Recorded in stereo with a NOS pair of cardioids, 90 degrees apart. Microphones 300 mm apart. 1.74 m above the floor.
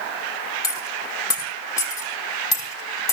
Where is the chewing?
I don't hear chewing.